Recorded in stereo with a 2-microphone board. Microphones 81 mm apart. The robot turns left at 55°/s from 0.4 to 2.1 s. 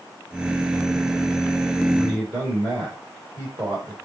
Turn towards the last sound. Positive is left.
turn(degrees=-20)  # may be behind; listen again after turning